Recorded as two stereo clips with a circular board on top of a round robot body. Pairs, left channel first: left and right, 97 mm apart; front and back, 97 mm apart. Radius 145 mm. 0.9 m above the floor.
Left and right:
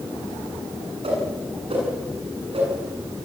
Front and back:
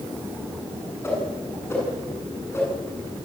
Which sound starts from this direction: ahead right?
A whoosh, at 1.0 s.